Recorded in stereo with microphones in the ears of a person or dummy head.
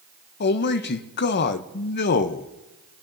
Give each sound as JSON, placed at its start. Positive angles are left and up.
{"t": 0.4, "sound": "a man speaking", "side_deg": 50, "distance_m": 0.6}